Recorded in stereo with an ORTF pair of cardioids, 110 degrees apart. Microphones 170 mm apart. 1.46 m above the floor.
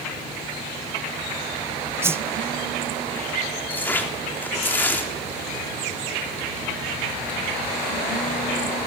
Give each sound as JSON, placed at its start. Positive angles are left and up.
{"t": 2.0, "sound": "a whoosh", "azimuth_deg": -15, "distance_m": 0.7}
{"t": 3.7, "sound": "tearing paper", "azimuth_deg": 10, "distance_m": 3.5}